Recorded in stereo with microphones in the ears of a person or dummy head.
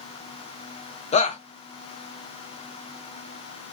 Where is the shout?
35° left (ahead or behind), 0.5 m.